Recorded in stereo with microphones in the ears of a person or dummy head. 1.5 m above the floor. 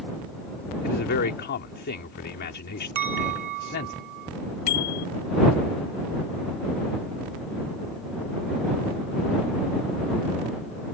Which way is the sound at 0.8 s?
60° left (ahead or behind).